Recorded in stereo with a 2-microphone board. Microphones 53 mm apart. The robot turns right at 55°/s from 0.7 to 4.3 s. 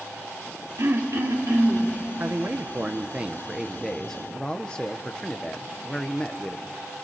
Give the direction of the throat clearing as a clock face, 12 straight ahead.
4 o'clock.